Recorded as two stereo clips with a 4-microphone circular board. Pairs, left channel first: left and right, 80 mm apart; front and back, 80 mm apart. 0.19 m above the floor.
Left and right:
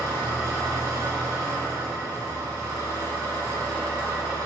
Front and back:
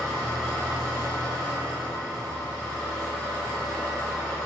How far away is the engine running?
About 1.0 m.